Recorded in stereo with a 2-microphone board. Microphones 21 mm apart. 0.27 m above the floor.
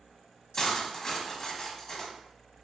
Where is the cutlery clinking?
25° left (ahead or behind), 1.0 m.